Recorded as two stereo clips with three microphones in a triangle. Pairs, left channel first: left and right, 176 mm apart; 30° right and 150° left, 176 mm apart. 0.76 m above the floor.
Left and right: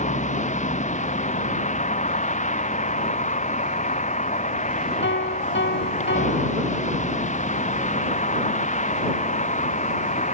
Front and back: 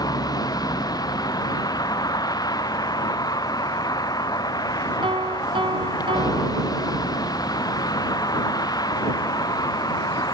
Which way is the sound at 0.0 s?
40° left.